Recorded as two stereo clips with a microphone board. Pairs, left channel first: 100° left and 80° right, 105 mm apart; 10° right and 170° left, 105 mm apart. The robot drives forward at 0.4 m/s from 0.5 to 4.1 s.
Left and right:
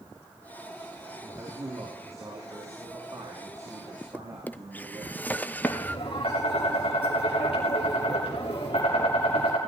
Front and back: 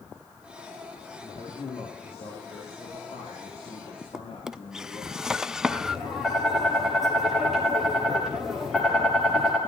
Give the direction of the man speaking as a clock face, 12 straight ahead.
1 o'clock.